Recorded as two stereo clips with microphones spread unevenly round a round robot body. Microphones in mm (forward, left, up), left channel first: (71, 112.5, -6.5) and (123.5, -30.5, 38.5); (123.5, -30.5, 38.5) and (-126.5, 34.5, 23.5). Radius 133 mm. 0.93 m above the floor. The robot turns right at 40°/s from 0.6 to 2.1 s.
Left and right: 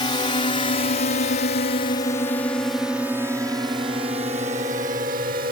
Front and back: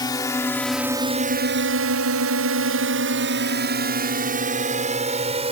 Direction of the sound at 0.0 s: 60° left.